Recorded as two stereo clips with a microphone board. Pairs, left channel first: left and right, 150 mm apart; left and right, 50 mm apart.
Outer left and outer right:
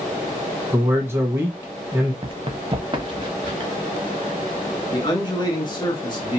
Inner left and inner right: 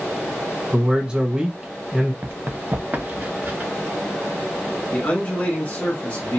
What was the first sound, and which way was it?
A man speaking, 15° right (ahead or behind).